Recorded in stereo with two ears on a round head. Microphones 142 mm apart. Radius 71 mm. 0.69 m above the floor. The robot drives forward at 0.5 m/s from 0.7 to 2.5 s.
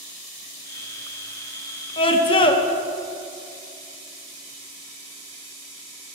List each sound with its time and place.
2.0 s a scream: 30° left (ahead or behind), 0.9 m